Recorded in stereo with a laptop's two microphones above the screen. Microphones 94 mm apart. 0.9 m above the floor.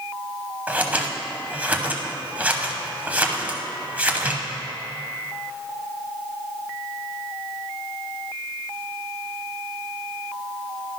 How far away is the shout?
No shout in this recording.